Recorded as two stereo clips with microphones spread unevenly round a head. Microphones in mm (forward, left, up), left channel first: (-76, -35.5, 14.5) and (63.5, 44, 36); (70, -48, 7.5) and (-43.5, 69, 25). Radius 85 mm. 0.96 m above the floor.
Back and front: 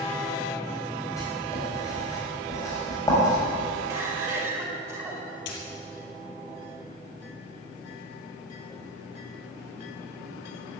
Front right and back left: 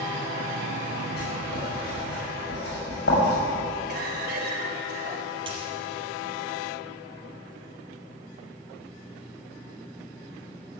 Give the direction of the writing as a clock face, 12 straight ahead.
3 o'clock.